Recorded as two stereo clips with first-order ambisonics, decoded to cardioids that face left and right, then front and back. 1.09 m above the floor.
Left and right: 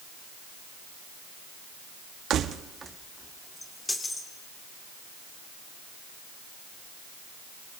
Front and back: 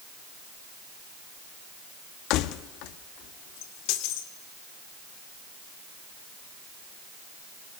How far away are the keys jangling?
About 1.0 m.